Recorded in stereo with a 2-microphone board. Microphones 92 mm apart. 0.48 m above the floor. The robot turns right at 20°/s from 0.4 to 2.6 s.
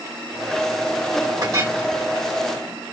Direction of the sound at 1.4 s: 40° right (ahead or behind).